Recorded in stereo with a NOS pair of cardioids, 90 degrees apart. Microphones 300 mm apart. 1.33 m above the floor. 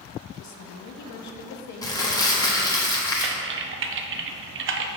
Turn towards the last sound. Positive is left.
turn(degrees=-45)